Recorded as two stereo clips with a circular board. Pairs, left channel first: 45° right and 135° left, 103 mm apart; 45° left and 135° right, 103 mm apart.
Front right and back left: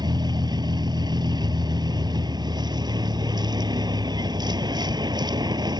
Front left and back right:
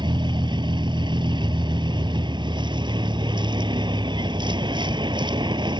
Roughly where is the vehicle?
Behind.